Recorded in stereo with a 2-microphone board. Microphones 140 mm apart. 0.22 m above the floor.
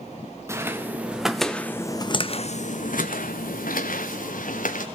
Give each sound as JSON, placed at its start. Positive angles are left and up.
{"t": 0.5, "sound": "footsteps", "side_deg": -20, "distance_m": 1.7}